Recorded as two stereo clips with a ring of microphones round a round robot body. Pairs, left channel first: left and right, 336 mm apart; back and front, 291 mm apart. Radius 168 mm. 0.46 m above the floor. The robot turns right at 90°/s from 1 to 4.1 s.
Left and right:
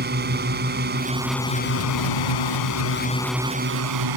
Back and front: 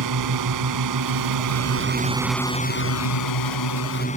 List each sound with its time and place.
0.0 s a drone: 30° right; by 4.2 s 110° right